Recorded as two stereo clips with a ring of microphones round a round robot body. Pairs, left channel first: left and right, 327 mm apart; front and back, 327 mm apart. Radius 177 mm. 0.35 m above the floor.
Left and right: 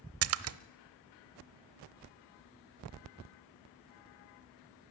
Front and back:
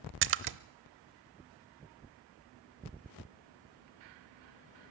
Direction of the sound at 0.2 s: 130° right.